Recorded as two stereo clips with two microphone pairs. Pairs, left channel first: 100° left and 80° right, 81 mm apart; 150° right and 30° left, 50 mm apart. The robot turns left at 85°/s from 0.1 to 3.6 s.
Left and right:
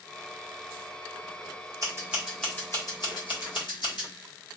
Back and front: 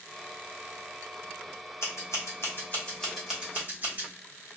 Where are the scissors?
130° right, 1.4 m; by 4.1 s 80° left, 1.4 m.